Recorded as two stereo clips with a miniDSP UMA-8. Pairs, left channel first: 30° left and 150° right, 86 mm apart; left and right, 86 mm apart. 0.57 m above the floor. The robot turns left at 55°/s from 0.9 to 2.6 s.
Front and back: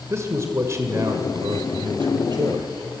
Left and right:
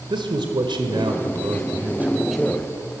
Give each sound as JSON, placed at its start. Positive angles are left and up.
{"t": 0.1, "sound": "a man speaking", "azimuth_deg": -95, "distance_m": 2.0}